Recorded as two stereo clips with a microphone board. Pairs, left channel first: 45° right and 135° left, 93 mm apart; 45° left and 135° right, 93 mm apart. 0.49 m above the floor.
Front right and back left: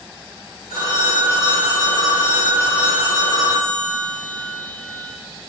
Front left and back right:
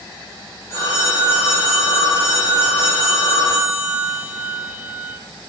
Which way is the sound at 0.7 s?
20° right.